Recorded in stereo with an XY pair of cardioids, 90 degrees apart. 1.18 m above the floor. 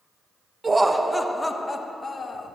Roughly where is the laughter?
Ahead right.